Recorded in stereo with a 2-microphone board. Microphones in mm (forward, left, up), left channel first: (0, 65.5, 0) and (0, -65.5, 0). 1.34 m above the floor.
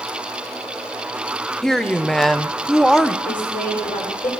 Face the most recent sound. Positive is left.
turn(degrees=90)